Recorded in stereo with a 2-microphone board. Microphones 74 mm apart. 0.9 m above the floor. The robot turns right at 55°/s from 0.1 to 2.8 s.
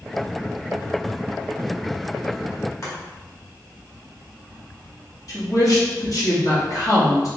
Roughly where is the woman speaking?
Left.